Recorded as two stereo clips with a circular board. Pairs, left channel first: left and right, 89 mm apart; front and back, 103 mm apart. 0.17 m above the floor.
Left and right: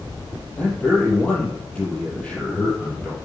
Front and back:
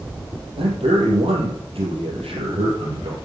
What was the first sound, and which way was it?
A man speaking, 165° left.